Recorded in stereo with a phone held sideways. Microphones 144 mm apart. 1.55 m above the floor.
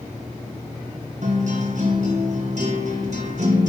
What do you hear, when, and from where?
1.2 s a guitar: 55° right (ahead or behind), 1.8 m